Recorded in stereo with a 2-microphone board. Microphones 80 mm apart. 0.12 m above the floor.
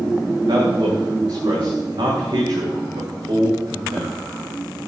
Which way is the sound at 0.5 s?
75° right (ahead or behind).